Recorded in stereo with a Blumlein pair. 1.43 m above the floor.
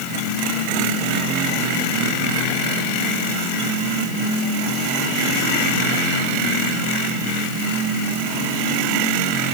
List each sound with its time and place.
Only background noise.